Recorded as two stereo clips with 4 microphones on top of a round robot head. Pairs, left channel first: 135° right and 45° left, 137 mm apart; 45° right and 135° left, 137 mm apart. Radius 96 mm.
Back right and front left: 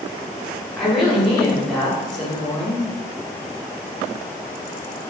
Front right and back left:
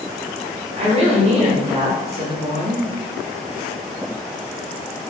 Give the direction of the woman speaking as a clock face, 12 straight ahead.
7 o'clock.